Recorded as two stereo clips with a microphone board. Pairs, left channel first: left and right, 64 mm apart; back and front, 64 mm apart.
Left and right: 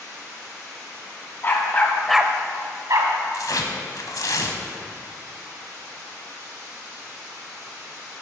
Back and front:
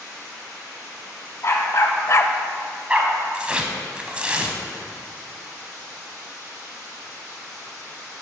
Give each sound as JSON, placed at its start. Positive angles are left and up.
{"t": 1.4, "sound": "a dog barking", "azimuth_deg": 140, "distance_m": 1.4}
{"t": 3.3, "sound": "tearing paper", "azimuth_deg": 70, "distance_m": 0.8}